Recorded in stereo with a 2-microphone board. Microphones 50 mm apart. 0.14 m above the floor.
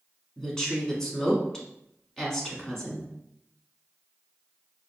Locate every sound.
0.4 s a woman speaking: 10° left (ahead or behind), 1.0 m